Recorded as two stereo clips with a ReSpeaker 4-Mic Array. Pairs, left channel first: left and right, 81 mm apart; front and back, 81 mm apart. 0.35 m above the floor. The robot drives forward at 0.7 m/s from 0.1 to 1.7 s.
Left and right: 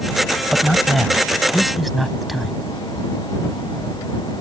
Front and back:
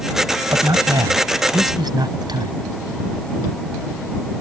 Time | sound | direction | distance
0.5 | a man speaking | straight behind | ?